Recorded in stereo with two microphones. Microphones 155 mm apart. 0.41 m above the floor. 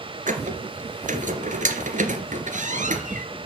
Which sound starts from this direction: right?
A squeak, at 0.3 s.